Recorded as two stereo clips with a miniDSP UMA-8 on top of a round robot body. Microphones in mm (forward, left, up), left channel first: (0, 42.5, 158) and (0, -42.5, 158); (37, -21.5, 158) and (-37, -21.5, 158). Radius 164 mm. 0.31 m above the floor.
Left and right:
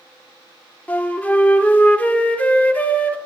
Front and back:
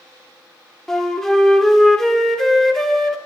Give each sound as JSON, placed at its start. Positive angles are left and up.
{"t": 0.9, "sound": "a flute", "azimuth_deg": 70, "distance_m": 1.6}